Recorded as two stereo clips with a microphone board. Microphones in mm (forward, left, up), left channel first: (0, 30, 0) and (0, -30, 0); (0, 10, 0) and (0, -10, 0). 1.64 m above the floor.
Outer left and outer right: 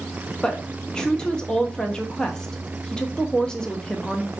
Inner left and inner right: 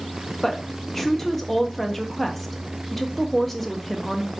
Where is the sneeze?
I don't hear a sneeze.